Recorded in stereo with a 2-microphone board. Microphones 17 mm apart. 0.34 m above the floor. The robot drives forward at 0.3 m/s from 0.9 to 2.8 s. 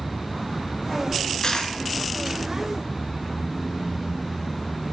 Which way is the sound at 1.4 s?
65° left (ahead or behind).